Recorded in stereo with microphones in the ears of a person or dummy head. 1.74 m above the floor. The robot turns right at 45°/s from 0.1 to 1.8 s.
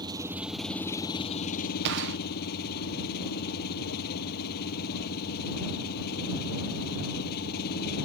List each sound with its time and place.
0.0 s an engine running: 20° right; by 8.1 s 55° left
1.9 s a gunshot: 60° right (ahead or behind)